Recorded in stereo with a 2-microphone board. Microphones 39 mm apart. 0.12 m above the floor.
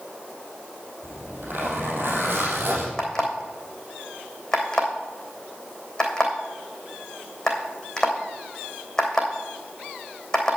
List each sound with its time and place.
1.0 s a zipper: 65° right (ahead or behind), 3.5 m
3.0 s an alarm clock: 15° left (ahead or behind), 3 m